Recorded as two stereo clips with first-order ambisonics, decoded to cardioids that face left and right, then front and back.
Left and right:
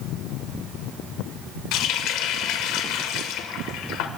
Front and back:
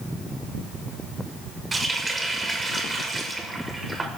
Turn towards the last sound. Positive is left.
turn(degrees=100)